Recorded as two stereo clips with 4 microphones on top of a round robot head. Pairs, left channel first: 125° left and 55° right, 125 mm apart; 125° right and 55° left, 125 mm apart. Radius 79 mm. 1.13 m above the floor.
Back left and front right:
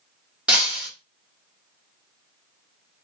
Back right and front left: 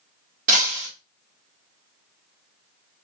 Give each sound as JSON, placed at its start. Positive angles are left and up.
{"t": 0.5, "sound": "breaking glass", "azimuth_deg": 25, "distance_m": 1.6}